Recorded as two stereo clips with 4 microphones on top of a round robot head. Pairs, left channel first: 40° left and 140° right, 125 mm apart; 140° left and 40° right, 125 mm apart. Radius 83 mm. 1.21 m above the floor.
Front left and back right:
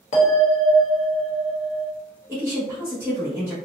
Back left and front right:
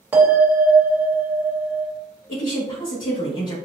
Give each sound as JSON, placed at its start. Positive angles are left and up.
{"t": 0.1, "sound": "a bell", "azimuth_deg": 30, "distance_m": 1.2}
{"t": 2.3, "sound": "a woman speaking", "azimuth_deg": 145, "distance_m": 1.2}